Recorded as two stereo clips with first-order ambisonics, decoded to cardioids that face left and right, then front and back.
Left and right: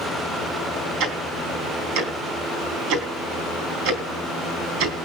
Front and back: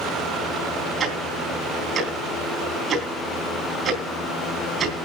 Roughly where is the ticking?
Behind right.